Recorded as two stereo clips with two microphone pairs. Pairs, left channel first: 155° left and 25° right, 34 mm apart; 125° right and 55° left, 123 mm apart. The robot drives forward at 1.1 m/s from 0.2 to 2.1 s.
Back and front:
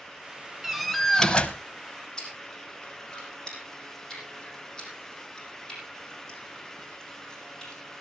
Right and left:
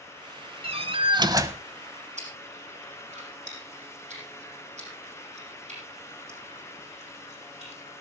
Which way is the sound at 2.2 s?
80° left.